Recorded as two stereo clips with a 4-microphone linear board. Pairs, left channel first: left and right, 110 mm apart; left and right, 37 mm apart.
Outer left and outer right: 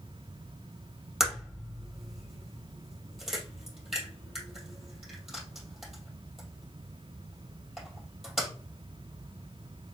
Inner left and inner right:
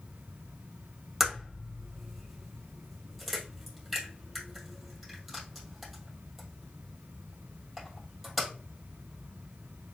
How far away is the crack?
About 2.5 m.